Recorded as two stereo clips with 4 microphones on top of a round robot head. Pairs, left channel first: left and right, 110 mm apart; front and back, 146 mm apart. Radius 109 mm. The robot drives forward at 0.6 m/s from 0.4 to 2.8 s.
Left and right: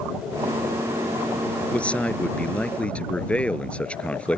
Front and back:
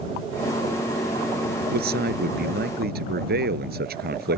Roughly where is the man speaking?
Behind.